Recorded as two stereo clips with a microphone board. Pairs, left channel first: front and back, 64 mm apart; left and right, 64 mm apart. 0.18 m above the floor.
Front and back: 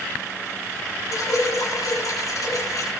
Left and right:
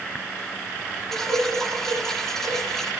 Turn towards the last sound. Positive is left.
turn(degrees=10)